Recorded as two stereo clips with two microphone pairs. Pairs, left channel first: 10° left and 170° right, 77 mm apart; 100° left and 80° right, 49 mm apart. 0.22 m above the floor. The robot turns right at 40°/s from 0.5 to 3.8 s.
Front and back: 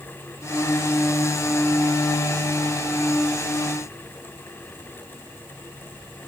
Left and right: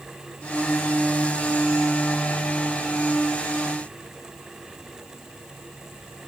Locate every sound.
Only background noise.